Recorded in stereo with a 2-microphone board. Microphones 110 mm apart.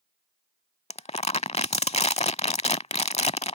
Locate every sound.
0.9 s crumpling: 75° left (ahead or behind)